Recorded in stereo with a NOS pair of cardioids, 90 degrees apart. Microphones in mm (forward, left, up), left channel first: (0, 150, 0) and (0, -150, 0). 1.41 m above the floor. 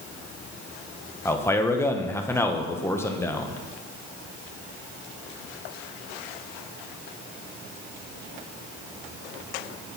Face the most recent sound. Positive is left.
turn(degrees=10)